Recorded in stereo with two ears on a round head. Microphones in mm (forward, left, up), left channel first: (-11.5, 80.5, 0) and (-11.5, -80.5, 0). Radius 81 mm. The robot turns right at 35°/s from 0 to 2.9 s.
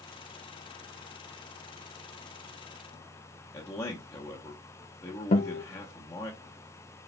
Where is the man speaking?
15° left (ahead or behind), 0.9 m.